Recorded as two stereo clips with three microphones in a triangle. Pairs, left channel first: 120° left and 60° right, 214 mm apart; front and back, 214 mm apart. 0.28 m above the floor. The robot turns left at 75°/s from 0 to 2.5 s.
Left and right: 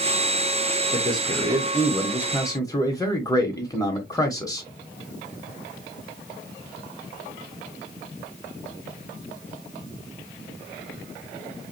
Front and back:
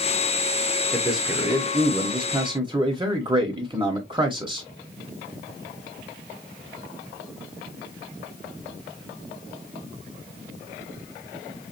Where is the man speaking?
80° right, 1.0 m; by 4.7 s 165° left, 1.0 m.